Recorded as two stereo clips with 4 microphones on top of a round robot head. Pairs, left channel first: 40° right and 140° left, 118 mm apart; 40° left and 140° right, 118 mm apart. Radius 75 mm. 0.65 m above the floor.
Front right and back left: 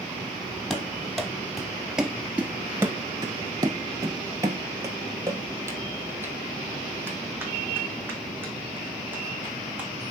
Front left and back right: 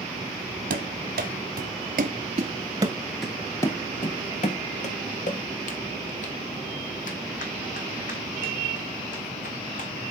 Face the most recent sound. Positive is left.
turn(degrees=60)